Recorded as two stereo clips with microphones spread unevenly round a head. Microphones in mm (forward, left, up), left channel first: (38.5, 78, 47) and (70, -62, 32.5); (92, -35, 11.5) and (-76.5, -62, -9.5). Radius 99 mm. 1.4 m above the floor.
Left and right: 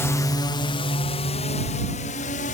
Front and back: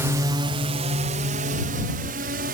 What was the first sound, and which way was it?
A drone, 160° left.